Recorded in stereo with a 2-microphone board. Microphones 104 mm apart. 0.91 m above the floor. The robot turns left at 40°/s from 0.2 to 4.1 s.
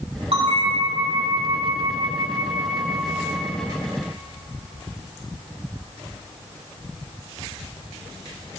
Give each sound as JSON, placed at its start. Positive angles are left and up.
{"t": 0.3, "sound": "a bell", "azimuth_deg": -65, "distance_m": 1.1}